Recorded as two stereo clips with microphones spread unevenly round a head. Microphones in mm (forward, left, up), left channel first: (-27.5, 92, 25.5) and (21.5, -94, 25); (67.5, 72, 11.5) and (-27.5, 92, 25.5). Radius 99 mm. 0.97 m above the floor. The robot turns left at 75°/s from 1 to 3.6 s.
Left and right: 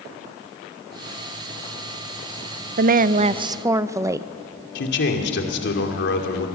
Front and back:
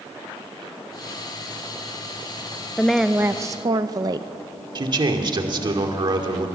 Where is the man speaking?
135° left, 2.5 m.